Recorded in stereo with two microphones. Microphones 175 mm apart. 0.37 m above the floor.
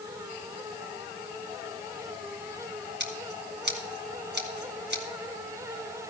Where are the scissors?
70° right (ahead or behind), 2 m.